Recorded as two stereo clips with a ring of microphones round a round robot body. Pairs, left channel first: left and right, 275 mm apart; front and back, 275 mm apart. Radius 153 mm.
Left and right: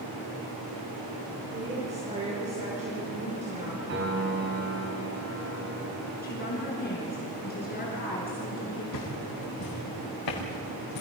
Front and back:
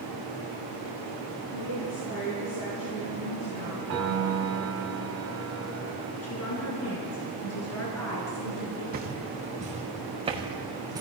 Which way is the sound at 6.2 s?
35° left.